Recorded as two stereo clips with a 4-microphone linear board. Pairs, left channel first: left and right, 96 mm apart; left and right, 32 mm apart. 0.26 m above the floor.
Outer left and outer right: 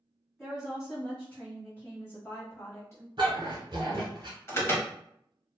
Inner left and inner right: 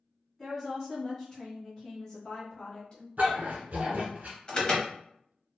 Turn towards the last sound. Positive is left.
turn(degrees=25)  # may be behind; listen again after turning